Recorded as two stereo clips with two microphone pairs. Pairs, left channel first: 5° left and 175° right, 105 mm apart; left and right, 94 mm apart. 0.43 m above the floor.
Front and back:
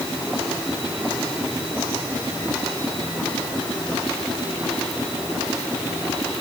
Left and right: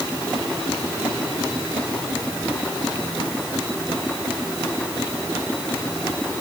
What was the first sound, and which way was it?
Only background noise.